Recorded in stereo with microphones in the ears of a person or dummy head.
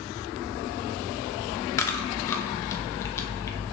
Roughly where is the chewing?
Centre.